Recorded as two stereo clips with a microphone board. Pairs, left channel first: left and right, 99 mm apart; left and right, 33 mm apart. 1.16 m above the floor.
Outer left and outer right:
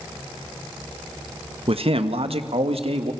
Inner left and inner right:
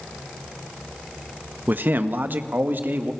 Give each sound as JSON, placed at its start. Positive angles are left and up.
{"t": 1.7, "sound": "a man speaking", "side_deg": -75, "distance_m": 1.2}